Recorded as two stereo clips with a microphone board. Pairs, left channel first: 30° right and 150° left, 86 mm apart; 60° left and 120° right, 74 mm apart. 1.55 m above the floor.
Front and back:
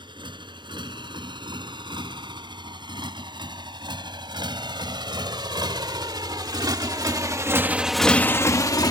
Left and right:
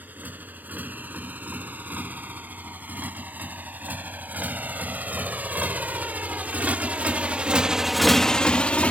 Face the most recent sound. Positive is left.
turn(degrees=-10)